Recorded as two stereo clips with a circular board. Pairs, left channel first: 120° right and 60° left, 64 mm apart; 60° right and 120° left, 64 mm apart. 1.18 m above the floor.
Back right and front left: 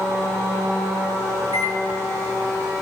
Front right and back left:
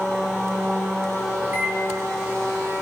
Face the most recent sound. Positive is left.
turn(degrees=60)